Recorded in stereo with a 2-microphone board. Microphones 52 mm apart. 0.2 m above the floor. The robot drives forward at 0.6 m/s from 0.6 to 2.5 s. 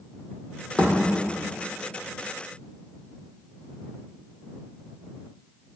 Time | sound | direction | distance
0.8 | a thud | 20° left (ahead or behind) | 2 m